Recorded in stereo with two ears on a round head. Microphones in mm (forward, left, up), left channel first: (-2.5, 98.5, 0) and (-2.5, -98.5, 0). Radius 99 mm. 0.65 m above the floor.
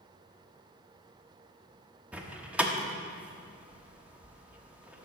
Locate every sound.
2.1 s a door slam: 5° right (ahead or behind), 0.9 m